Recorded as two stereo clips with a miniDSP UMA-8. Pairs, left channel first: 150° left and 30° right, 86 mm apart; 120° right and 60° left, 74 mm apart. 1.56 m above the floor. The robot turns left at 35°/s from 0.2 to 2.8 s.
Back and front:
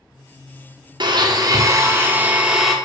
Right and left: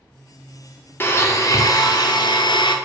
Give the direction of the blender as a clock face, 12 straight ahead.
2 o'clock.